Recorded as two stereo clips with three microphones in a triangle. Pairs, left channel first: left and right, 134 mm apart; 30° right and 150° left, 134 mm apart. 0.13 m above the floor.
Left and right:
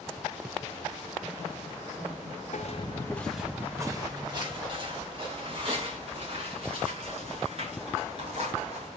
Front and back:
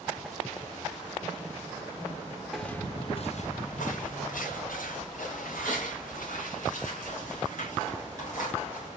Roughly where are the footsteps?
Ahead left.